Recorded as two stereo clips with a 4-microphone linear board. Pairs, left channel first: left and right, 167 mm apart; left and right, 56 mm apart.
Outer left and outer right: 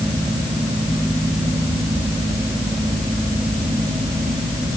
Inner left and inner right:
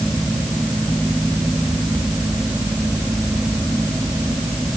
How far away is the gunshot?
No gunshot in this recording.